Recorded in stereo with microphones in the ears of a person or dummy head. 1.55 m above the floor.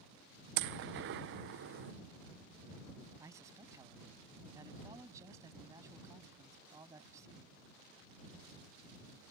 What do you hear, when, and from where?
0.6 s a gunshot: 55° right (ahead or behind)
3.2 s a man speaking: 20° right (ahead or behind)